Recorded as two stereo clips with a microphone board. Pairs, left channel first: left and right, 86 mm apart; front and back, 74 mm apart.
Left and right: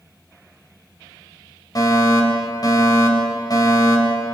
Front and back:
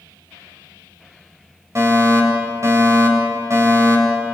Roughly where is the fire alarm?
Behind left.